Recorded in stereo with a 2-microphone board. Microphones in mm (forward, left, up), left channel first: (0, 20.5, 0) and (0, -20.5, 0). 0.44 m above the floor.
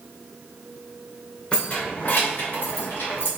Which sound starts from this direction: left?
Keys jangling, at 1.5 s.